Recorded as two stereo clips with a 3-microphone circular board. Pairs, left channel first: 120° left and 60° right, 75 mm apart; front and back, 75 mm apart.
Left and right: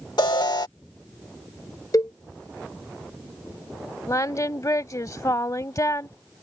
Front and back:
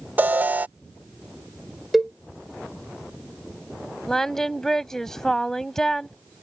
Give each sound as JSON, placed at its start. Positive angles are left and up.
{"t": 0.2, "sound": "an alarm", "azimuth_deg": 115}
{"t": 1.9, "sound": "a cowbell", "azimuth_deg": 95}
{"t": 4.1, "sound": "singing", "azimuth_deg": 85}